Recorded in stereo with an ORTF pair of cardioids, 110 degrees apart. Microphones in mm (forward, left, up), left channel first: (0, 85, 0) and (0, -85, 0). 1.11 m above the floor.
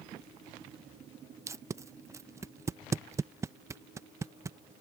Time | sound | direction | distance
1.5 | tape being pulled | 15° right | ?